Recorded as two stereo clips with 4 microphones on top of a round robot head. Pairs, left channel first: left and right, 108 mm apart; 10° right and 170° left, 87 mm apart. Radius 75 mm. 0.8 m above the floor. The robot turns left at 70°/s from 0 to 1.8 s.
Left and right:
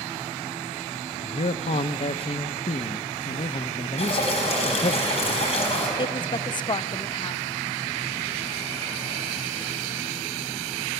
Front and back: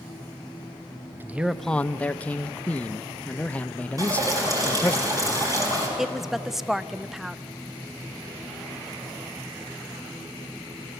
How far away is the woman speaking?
About 0.6 m.